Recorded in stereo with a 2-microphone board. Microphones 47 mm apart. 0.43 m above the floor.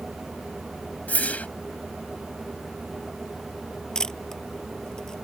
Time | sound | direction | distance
1.1 | a whoosh | 30° left (ahead or behind) | ?
4.0 | a camera shutter | 10° left (ahead or behind) | ?